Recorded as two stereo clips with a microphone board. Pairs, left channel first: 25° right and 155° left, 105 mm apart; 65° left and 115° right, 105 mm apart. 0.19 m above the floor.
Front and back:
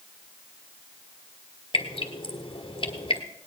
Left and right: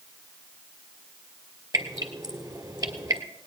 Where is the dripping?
60° right, 1.3 m.